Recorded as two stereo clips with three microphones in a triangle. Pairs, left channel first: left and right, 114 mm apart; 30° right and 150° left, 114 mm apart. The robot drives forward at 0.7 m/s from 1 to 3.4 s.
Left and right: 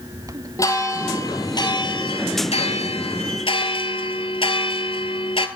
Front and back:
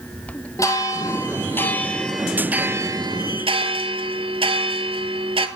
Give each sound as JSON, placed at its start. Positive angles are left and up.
{"t": 0.6, "sound": "a bell", "azimuth_deg": 30, "distance_m": 1.5}